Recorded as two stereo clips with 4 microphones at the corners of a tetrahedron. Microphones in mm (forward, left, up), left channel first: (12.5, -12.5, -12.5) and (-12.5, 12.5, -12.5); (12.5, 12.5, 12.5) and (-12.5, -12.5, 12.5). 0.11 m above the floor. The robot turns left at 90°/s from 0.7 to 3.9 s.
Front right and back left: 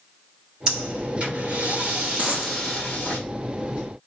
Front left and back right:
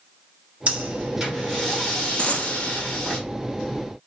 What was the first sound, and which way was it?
Breathing, 165° right.